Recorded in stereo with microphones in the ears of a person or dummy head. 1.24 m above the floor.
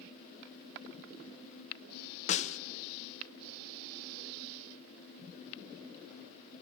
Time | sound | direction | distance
2.3 | a snare drum | 40° left (ahead or behind) | 0.7 m